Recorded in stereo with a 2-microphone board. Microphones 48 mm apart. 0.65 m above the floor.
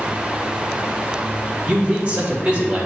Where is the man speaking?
30° right (ahead or behind), 3 m.